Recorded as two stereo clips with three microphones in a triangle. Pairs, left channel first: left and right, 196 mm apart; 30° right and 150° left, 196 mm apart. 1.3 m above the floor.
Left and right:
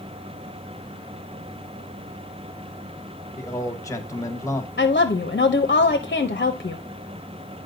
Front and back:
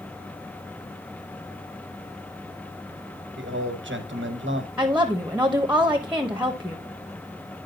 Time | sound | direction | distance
3.4 | a man speaking | 165° left | 1.1 m
4.8 | a woman speaking | 70° left | 0.7 m